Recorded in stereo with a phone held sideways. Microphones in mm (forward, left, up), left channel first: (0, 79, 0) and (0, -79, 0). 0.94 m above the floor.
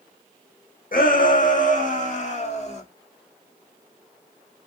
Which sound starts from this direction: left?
A shout, at 0.9 s.